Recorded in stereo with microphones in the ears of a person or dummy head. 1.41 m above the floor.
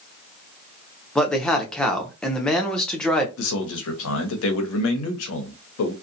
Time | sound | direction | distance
1.1 | a man speaking | 5° left (ahead or behind) | 0.6 m
3.4 | a man speaking | 75° left (ahead or behind) | 0.7 m